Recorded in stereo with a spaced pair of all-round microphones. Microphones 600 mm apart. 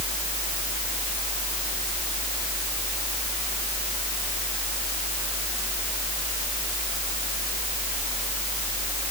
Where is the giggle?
No giggle in this recording.